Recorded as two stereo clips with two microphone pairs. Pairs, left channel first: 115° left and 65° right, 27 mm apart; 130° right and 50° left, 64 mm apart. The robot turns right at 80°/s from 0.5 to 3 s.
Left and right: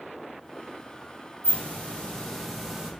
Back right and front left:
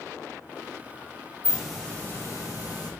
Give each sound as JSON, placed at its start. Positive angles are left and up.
{"t": 1.4, "sound": "a hiss", "azimuth_deg": 120, "distance_m": 1.0}